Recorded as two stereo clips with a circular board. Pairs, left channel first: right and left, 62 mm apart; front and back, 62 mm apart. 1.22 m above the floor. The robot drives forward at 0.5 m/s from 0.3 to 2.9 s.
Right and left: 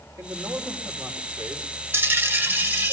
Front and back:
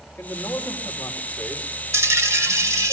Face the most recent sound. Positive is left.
turn(degrees=145)